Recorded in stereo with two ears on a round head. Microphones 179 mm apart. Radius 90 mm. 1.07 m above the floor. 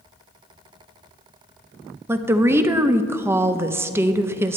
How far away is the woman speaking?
About 0.7 m.